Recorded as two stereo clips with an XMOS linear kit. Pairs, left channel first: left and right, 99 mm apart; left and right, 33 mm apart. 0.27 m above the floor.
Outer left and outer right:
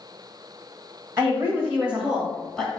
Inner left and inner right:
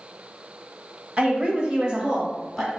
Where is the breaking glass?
No breaking glass in this recording.